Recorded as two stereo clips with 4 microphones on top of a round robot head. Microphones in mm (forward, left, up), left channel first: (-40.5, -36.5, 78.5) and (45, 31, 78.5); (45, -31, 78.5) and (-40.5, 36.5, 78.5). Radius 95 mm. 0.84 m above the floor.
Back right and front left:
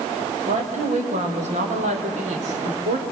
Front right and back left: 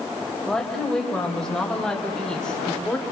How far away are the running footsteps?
I don't hear running footsteps.